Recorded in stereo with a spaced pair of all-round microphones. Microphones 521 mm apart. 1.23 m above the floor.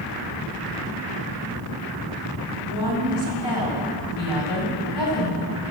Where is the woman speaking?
50° left (ahead or behind), 5.5 m.